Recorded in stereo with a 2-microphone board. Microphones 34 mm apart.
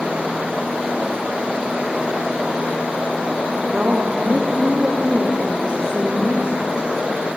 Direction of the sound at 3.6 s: 35° right (ahead or behind).